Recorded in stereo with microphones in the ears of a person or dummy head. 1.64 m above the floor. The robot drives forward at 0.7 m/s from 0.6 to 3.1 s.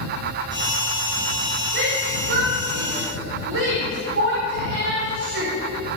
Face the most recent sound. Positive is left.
turn(degrees=-80)